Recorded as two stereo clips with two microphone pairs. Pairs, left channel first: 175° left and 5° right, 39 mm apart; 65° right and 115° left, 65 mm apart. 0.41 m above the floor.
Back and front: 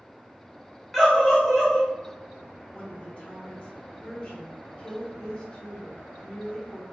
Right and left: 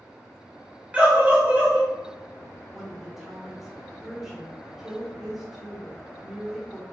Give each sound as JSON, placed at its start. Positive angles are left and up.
{"t": 0.9, "sound": "a scream", "azimuth_deg": 100, "distance_m": 0.9}
{"t": 2.7, "sound": "a woman speaking", "azimuth_deg": -165, "distance_m": 0.9}